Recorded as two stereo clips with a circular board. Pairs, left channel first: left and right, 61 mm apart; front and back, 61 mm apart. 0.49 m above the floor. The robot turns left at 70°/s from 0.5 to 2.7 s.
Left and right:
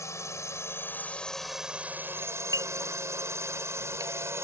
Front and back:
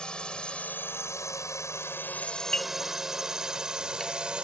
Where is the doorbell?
55° right; by 4.3 s 85° right.